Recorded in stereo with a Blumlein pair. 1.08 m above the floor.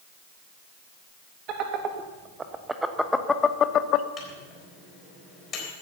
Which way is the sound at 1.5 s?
35° right.